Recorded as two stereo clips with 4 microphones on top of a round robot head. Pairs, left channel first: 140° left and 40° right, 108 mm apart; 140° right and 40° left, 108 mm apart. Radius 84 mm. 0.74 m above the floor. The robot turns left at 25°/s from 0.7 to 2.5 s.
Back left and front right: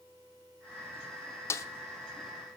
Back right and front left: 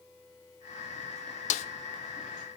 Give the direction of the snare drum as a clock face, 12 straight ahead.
5 o'clock.